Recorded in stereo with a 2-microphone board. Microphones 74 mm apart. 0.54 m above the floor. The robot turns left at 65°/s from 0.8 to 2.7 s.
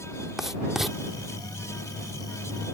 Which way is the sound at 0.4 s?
5° right (ahead or behind).